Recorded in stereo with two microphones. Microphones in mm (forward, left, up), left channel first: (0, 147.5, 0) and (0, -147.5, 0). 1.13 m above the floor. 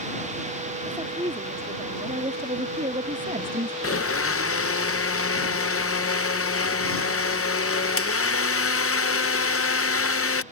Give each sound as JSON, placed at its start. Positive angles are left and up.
{"t": 0.8, "sound": "a woman speaking", "side_deg": -15}
{"t": 3.8, "sound": "a blender", "side_deg": 50}